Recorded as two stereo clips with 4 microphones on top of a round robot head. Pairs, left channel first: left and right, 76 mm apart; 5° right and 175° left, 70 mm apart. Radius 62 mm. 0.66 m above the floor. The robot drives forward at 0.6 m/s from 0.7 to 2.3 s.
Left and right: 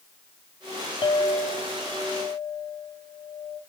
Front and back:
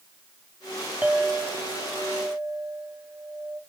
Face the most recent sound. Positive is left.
turn(degrees=130)